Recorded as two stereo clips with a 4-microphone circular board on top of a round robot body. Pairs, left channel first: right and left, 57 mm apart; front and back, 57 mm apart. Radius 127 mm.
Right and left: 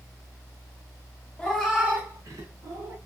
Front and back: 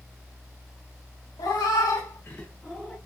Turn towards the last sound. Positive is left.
turn(degrees=90)